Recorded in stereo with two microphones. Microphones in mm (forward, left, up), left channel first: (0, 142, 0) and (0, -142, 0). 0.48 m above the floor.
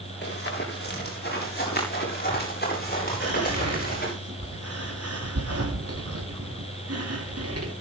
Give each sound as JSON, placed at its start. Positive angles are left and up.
{"t": 0.2, "sound": "running footsteps", "side_deg": 35, "distance_m": 7.5}
{"t": 3.2, "sound": "whispering", "side_deg": -55, "distance_m": 3.0}